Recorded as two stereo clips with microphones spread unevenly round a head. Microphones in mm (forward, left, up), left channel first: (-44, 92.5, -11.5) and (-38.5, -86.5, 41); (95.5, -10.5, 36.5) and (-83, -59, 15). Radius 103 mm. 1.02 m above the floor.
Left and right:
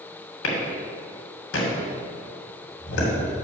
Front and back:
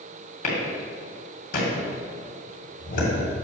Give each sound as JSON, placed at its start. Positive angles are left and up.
{"t": 0.4, "sound": "a clap", "azimuth_deg": 70, "distance_m": 2.5}